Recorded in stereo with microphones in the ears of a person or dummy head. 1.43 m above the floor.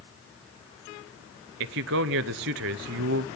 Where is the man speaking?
60° right (ahead or behind), 0.6 m.